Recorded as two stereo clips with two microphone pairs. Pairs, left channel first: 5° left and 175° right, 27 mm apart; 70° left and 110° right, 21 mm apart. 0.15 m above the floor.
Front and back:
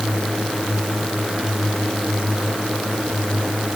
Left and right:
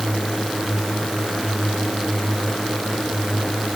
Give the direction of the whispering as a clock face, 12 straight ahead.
I don't hear whispering.